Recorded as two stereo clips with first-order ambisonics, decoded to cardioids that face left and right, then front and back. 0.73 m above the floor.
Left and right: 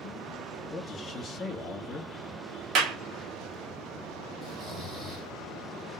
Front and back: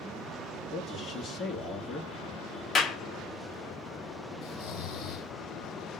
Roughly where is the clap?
Ahead right.